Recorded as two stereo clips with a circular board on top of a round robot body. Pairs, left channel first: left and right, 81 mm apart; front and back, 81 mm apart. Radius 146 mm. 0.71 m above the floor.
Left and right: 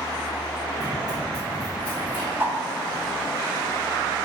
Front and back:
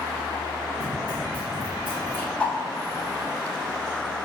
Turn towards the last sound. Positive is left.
turn(degrees=-60)